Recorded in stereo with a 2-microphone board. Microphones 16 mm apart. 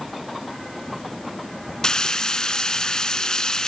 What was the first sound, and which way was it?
Frying, 55° left (ahead or behind).